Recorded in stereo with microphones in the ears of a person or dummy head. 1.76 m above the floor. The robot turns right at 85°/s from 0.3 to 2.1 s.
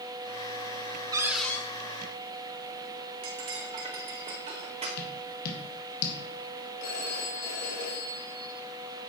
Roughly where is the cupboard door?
Ahead right.